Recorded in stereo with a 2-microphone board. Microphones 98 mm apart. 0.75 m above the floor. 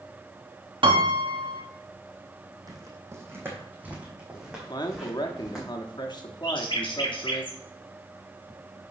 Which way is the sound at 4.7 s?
45° left (ahead or behind).